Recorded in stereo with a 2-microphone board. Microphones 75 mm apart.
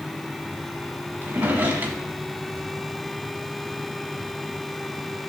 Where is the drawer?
25° right (ahead or behind), 1.4 m.